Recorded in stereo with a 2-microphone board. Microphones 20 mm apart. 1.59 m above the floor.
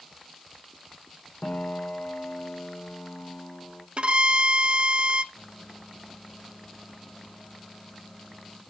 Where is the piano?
70° left (ahead or behind), 1.6 m.